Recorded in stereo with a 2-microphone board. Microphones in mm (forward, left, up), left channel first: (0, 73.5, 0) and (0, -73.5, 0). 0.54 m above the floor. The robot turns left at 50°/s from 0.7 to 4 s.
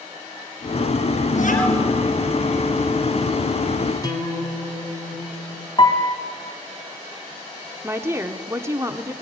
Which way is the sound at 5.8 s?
35° left (ahead or behind).